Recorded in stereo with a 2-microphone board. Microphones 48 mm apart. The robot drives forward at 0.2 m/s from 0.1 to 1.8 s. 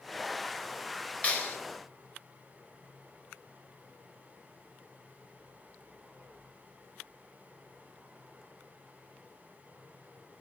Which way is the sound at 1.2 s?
35° left (ahead or behind).